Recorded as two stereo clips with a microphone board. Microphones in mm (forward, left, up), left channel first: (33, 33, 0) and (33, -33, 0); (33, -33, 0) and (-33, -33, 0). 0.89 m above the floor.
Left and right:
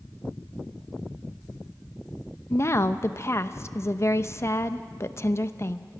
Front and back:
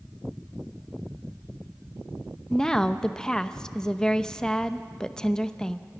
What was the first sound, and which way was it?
A woman speaking, 75° left.